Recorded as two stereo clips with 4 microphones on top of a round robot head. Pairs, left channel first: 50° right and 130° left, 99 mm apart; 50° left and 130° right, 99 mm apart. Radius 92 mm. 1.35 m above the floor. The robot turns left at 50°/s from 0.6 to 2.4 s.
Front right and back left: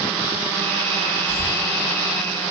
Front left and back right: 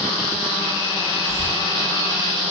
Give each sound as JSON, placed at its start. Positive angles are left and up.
{"t": 1.3, "sound": "a cough", "azimuth_deg": -15, "distance_m": 5.0}